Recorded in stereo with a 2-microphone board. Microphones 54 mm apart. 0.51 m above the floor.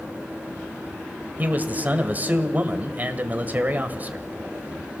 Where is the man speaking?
30° right (ahead or behind), 1.9 m.